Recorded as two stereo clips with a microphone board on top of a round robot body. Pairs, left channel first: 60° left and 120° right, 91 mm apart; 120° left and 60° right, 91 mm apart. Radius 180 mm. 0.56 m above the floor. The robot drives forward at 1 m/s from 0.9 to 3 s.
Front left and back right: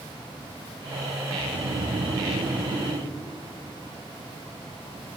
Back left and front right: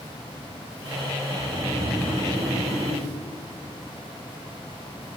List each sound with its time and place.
1.3 s snoring: 150° right, 2.5 m; by 3.1 s 165° right, 4 m